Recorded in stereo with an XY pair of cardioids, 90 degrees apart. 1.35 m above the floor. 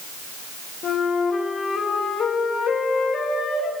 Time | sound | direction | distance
0.8 | a flute | 65° left | 2 m